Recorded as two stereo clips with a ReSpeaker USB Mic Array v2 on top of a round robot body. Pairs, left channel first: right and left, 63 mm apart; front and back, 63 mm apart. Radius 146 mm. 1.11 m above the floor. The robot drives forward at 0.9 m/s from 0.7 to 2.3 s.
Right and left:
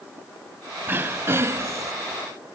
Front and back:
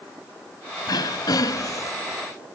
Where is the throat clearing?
25° left; by 1.9 s 45° left.